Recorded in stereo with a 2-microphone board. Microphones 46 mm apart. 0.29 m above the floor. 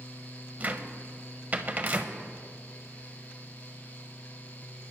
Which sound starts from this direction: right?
A cupboard door, at 0.6 s.